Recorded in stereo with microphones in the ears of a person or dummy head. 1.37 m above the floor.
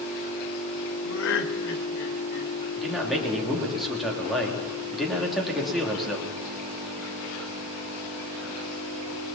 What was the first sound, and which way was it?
Laughter, 80° left.